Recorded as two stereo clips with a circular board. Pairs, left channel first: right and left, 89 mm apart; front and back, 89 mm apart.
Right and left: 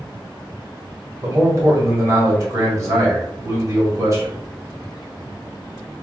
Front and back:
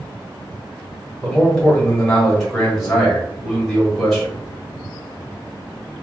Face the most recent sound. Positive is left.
turn(degrees=85)